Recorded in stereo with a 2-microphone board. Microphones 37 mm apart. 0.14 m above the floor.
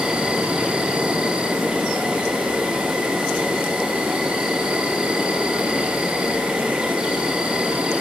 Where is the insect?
25° right (ahead or behind), 1.5 m.